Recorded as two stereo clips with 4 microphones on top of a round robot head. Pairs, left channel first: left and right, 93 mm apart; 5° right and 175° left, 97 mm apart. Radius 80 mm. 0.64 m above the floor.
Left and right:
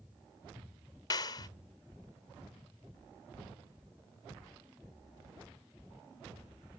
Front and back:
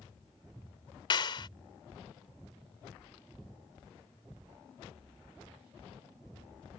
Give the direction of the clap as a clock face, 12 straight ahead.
11 o'clock.